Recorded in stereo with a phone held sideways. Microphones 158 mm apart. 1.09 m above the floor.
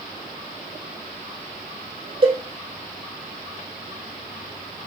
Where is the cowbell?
40° right (ahead or behind), 0.8 m.